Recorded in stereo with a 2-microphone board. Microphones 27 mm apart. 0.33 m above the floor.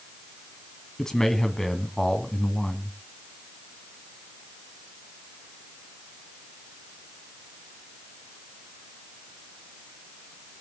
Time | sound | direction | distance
1.0 | a man speaking | 25° left (ahead or behind) | 2 m